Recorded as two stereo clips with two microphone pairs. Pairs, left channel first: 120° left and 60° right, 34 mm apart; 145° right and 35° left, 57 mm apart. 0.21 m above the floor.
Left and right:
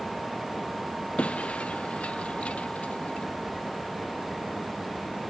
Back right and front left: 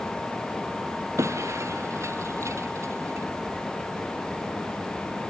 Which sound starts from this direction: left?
Breaking glass, at 1.2 s.